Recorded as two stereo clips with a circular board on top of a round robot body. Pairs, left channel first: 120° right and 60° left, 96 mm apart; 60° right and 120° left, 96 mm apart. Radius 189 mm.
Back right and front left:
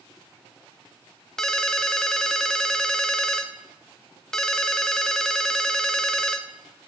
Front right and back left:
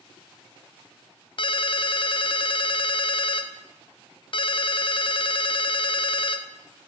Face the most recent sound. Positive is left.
turn(degrees=-35)